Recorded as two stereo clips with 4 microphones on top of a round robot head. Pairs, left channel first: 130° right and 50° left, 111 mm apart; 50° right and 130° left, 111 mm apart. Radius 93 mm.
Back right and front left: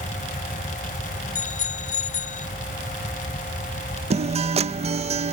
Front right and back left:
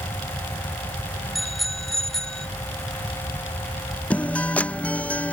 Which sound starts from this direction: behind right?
A bicycle bell, at 1.4 s.